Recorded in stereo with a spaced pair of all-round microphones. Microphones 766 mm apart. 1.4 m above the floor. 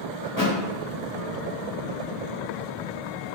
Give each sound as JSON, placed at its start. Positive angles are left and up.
{"t": 0.2, "sound": "a thud", "side_deg": 25, "distance_m": 0.9}